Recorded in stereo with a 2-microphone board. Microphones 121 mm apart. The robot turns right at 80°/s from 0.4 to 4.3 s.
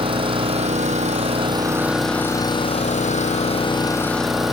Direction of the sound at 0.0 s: 130° right.